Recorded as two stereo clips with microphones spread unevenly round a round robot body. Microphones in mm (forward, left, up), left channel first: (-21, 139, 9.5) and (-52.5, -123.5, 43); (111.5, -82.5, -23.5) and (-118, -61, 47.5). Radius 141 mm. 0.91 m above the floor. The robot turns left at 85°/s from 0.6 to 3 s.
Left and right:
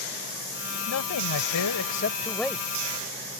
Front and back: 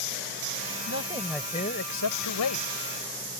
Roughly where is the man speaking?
Behind left.